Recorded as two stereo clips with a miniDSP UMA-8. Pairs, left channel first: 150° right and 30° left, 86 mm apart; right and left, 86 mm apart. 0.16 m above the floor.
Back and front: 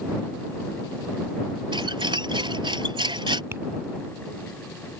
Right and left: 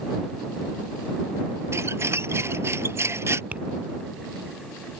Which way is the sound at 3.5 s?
35° left.